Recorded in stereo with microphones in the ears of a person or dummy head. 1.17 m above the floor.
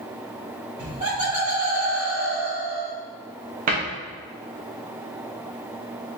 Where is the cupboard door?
40° right (ahead or behind), 0.9 m.